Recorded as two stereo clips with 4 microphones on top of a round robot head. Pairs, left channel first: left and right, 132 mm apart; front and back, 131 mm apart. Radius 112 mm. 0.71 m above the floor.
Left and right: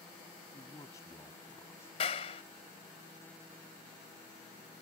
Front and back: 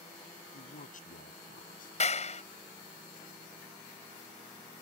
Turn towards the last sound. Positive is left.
turn(degrees=35)